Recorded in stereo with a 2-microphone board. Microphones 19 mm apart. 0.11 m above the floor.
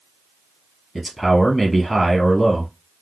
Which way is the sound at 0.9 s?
Centre (ahead or behind).